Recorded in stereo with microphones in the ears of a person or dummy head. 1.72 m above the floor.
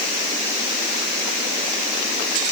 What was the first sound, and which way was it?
Only background noise.